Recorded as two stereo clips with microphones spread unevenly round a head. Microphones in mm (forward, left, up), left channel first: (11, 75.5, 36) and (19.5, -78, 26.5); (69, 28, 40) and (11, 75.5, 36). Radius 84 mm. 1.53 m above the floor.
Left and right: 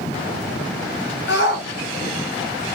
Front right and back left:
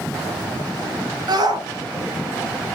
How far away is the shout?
About 1.8 m.